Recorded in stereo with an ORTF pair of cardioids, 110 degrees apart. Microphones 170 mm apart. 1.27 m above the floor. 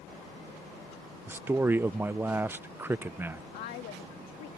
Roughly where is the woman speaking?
Left.